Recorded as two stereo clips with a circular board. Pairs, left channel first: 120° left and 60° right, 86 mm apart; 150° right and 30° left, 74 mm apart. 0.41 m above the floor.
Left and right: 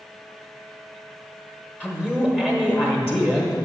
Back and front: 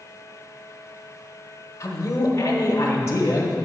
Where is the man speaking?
170° right, 0.9 m.